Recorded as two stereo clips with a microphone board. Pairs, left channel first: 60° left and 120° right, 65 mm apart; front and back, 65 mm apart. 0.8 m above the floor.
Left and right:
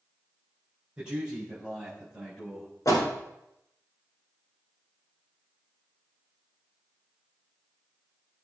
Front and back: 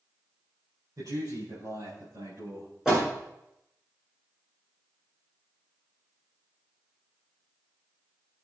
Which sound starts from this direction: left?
A door slam, at 2.9 s.